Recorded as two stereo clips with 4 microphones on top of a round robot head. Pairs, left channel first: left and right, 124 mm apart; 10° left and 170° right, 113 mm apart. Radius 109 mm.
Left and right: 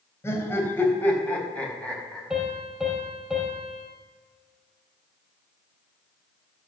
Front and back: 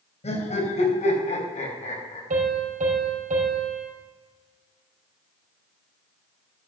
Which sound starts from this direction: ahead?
Laughter, at 0.2 s.